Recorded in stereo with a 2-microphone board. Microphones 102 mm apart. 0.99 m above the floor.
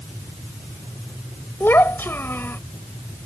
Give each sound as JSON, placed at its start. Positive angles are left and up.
{"t": 1.6, "sound": "a child speaking", "side_deg": 25}